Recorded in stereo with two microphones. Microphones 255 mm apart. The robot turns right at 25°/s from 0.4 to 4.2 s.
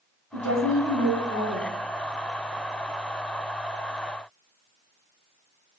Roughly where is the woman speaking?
Ahead left.